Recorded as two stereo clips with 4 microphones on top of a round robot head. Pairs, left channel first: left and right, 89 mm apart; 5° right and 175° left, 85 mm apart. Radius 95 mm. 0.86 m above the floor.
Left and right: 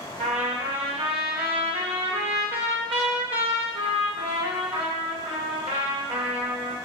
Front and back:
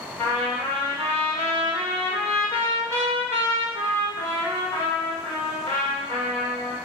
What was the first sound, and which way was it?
A trumpet, 70° right.